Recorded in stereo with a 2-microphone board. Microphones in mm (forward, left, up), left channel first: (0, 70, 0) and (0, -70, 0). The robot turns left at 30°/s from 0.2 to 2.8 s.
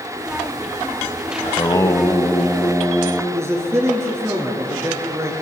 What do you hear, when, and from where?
1.4 s singing: 40° left, 1.4 m; by 3.2 s straight ahead, 1.4 m
3.3 s a man speaking: 20° right (ahead or behind), 4.5 m